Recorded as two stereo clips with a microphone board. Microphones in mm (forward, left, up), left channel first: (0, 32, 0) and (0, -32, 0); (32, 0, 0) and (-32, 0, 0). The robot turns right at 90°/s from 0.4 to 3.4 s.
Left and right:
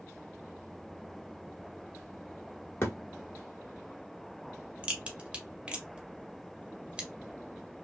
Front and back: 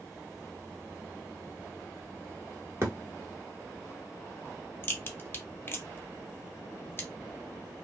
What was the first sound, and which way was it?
A thud, 135° left.